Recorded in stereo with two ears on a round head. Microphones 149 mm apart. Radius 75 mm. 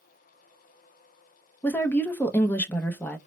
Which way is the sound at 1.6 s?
10° left (ahead or behind).